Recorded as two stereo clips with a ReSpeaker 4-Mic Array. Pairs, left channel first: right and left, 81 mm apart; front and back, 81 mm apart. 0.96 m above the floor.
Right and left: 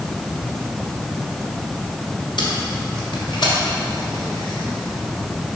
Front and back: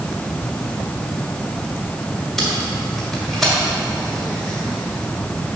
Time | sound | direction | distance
2.4 | tape being pulled | 90° right | 1.8 m